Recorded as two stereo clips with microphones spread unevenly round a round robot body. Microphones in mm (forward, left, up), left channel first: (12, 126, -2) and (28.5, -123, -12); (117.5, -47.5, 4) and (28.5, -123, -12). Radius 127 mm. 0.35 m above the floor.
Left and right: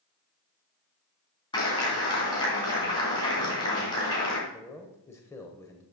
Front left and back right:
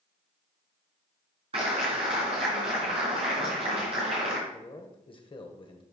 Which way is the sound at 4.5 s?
15° left.